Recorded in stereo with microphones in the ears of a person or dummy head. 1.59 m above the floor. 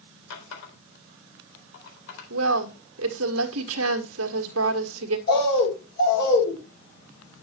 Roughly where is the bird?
Left.